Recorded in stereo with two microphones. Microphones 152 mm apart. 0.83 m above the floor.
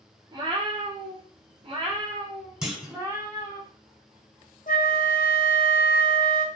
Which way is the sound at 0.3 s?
30° right (ahead or behind).